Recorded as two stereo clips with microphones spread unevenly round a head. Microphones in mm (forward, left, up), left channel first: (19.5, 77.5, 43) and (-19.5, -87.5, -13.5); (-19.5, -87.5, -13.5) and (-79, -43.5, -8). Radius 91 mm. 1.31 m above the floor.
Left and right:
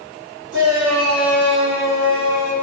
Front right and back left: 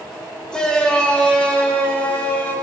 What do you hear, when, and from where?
0.5 s a shout: 115° right, 5 m; by 2.5 s 105° right, 6.5 m